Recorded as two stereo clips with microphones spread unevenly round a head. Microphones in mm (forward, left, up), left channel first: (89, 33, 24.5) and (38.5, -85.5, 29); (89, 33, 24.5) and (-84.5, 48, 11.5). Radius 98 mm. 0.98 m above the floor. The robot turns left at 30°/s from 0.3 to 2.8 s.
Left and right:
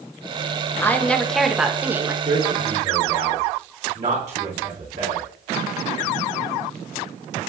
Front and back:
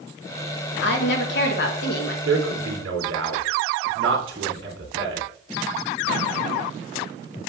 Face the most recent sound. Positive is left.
turn(degrees=-170)